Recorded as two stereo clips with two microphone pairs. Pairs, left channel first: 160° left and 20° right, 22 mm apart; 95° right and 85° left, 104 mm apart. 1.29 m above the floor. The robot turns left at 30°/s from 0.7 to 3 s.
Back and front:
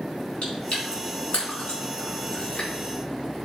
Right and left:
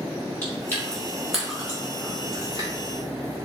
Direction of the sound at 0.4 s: 170° right.